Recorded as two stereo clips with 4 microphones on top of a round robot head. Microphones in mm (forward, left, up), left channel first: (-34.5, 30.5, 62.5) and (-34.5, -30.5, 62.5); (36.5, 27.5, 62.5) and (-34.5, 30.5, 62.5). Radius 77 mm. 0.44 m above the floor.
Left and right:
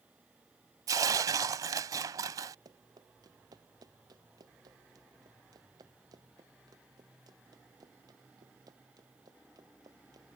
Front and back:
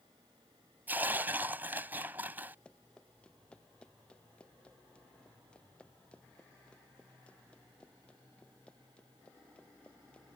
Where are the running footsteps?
80° right.